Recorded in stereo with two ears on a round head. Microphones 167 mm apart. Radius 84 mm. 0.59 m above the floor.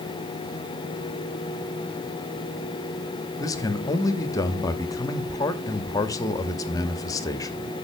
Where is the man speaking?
20° left (ahead or behind), 0.9 m.